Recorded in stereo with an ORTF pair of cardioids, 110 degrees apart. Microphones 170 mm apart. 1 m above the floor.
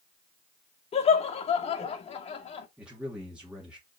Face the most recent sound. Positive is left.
turn(degrees=-5)